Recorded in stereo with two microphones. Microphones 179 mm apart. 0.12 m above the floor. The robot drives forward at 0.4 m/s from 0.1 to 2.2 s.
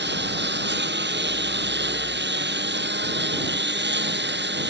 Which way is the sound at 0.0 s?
80° right.